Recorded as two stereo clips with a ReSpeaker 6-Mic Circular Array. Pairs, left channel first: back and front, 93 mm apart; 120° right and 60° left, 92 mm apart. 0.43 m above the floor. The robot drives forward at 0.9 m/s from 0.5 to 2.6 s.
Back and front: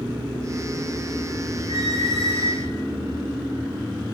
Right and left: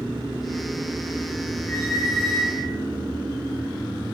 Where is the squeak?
165° left, 7 m; by 2.7 s 170° left, 8 m.